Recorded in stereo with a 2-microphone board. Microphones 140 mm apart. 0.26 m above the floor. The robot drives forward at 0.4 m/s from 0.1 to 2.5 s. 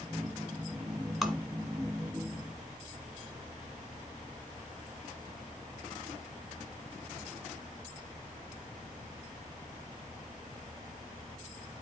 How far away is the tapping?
About 1.6 m.